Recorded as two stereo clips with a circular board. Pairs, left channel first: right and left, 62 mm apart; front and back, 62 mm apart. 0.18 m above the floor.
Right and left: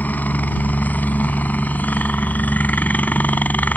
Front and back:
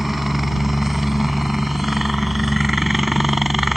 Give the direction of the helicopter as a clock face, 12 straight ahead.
3 o'clock.